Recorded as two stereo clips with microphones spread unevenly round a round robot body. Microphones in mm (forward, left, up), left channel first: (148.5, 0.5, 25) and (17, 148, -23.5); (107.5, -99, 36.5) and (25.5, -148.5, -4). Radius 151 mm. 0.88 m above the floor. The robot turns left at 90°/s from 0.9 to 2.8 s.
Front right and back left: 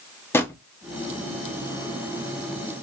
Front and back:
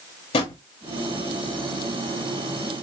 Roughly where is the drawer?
Ahead left.